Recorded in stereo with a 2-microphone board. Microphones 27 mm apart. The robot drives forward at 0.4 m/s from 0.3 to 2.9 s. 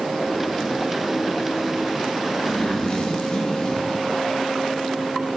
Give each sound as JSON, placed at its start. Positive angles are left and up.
{"t": 2.4, "sound": "a zipper", "side_deg": 45, "distance_m": 1.5}